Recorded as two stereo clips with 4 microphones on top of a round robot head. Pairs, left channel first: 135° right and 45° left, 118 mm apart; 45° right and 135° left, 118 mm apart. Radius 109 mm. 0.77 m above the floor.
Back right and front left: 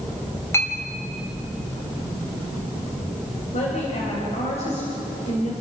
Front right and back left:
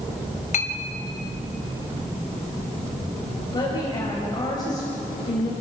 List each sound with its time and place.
0.5 s a clink: 65° right, 2.5 m
3.5 s a woman speaking: 105° right, 4.5 m